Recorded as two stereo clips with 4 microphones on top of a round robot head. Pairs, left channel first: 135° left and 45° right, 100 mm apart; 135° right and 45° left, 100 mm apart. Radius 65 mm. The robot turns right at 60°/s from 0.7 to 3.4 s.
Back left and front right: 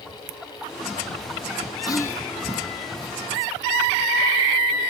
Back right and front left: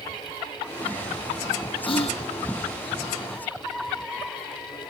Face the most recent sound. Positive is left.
turn(degrees=-80)